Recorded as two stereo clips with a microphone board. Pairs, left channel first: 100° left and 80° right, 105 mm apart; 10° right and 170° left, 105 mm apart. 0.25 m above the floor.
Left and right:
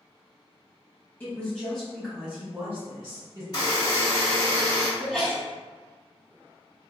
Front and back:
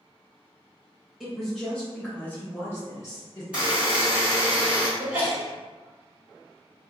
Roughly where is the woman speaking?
Left.